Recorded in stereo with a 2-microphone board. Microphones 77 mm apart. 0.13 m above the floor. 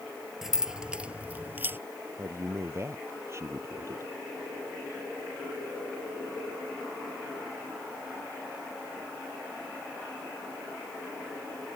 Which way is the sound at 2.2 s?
40° right (ahead or behind).